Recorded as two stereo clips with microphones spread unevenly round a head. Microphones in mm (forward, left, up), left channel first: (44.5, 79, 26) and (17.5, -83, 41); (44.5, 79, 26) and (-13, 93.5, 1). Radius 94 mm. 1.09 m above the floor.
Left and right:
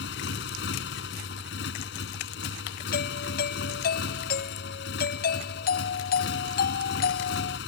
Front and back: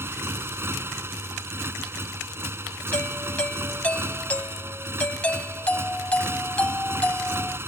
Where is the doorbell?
50° left.